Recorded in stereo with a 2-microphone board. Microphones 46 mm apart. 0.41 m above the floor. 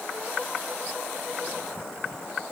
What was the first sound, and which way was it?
Only background noise.